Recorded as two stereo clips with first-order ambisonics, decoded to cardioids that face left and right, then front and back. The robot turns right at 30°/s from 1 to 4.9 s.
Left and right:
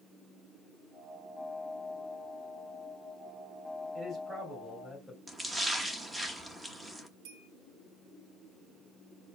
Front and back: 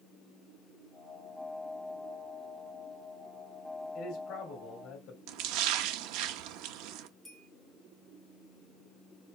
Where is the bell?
85° right, 4 m.